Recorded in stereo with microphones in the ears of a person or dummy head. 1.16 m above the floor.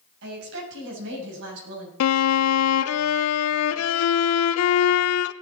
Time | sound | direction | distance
0.2 | a woman speaking | 75° right (ahead or behind) | 6.5 m
2.0 | a violin | 80° left | 0.5 m